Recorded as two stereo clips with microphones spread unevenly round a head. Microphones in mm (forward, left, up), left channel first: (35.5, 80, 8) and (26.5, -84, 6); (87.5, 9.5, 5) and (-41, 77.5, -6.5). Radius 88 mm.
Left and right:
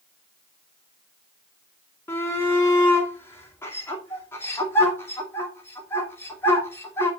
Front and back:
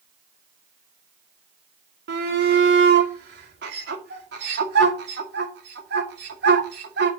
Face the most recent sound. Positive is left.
turn(degrees=165)